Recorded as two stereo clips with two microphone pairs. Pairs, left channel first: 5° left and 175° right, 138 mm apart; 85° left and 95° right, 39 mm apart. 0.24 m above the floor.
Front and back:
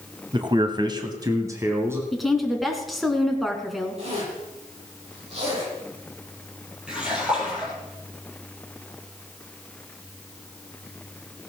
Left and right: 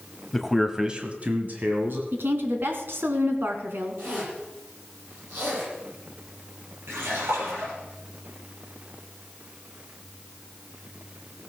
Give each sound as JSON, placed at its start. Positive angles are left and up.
{"t": 0.3, "sound": "a man speaking", "azimuth_deg": 165, "distance_m": 1.4}
{"t": 2.1, "sound": "a woman speaking", "azimuth_deg": -80, "distance_m": 2.0}
{"t": 4.0, "sound": "a zipper", "azimuth_deg": -130, "distance_m": 8.5}
{"t": 6.9, "sound": "a splash", "azimuth_deg": -90, "distance_m": 4.5}